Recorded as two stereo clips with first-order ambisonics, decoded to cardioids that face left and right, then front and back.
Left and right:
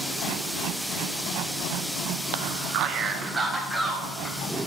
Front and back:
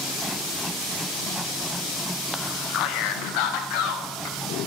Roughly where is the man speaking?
Right.